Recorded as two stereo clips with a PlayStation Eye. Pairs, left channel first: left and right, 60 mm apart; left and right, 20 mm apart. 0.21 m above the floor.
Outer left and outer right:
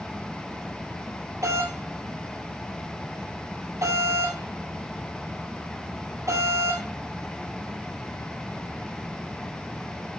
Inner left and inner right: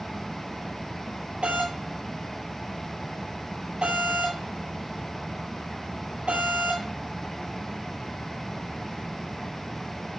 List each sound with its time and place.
1.4 s a doorbell: 55° right (ahead or behind), 6.5 m